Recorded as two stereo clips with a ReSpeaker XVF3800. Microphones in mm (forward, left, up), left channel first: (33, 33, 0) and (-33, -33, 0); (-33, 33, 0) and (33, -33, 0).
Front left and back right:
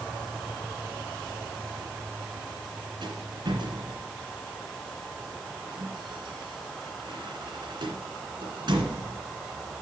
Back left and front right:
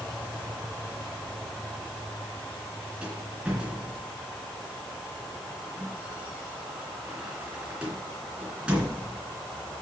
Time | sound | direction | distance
3.0 | a rattle | 120° right | 2.5 m